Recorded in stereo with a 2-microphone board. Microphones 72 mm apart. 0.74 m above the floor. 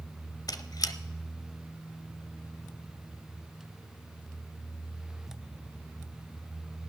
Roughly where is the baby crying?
No baby crying in this recording.